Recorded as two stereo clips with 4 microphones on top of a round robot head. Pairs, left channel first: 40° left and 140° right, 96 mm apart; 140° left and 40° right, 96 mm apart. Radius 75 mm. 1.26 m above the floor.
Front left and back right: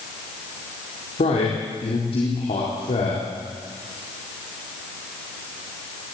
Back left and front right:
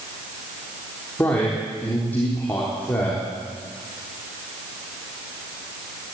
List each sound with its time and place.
1.2 s a man speaking: 70° left, 4 m